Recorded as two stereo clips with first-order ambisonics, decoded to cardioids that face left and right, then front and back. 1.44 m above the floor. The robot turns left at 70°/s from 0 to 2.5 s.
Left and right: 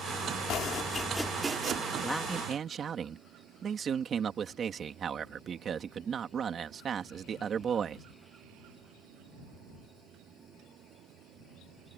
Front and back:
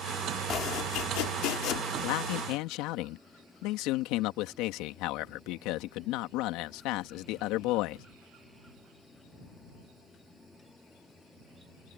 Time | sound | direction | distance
0.5 | chopping | 50° left | ?
2.0 | a man speaking | 5° left | ?